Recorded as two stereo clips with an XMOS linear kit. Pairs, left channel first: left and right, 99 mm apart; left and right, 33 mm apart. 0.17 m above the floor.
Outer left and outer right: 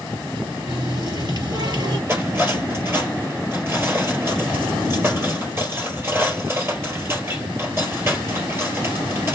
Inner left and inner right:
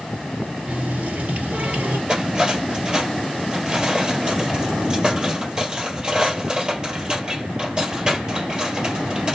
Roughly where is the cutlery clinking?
Right.